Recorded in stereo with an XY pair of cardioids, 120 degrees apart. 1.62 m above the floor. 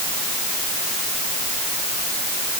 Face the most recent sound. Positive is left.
No sound to turn to.